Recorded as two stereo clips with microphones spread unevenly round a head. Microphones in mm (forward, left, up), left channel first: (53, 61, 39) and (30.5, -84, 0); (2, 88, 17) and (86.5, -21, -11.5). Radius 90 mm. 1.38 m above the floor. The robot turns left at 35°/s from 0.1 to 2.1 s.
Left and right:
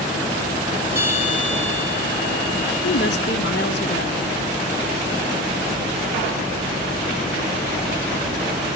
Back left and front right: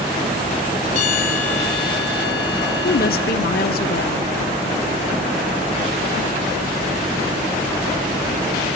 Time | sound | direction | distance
0.9 | a bell | 175° right | 2 m
2.8 | a woman speaking | 120° left | 1.4 m